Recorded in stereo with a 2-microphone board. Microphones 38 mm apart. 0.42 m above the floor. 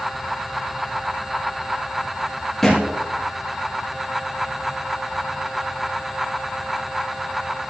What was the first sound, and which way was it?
A thud, 5° left (ahead or behind).